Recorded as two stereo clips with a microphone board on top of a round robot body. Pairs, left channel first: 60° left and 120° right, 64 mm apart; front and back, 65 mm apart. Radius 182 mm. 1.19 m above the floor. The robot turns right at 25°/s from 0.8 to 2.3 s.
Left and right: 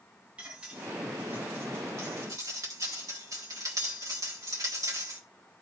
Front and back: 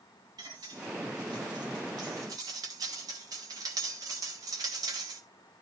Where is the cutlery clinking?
165° left, 1.5 m; by 5.2 s 155° right, 1.5 m.